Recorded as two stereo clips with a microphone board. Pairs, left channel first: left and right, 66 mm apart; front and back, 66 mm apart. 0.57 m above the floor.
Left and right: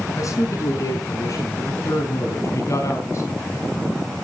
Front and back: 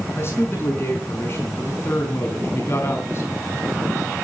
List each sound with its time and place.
0.2 s a man speaking: 50° left, 5.5 m; by 3.6 s 45° left, 3.5 m